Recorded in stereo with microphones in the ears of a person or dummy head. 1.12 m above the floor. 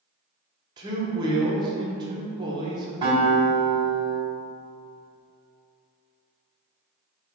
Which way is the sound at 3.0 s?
30° right (ahead or behind).